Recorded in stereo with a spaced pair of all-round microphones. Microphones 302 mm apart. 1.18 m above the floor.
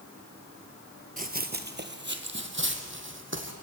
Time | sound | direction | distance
1.2 | running footsteps | 25° right (ahead or behind) | 1.3 m